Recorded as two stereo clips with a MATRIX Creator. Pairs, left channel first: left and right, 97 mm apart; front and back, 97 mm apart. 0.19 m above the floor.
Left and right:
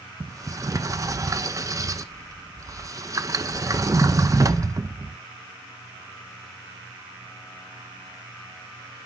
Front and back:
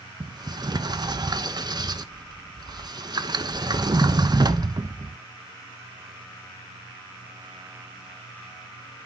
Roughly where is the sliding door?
Behind right.